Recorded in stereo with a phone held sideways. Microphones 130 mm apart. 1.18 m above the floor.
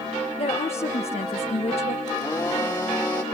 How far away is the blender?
About 2.5 m.